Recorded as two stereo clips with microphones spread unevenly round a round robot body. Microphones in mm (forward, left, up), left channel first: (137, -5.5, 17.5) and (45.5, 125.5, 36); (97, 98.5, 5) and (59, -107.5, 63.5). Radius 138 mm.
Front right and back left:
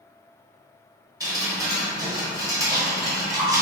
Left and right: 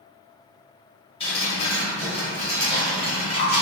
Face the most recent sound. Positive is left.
turn(degrees=55)